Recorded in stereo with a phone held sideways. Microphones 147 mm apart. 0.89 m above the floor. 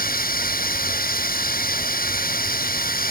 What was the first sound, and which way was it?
Running water, 80° left.